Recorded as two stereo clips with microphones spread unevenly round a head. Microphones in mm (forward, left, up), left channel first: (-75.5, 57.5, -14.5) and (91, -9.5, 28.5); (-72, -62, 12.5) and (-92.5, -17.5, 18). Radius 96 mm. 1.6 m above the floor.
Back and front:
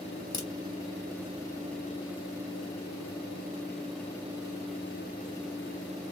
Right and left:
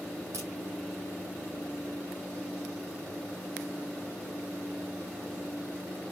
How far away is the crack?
About 2.5 m.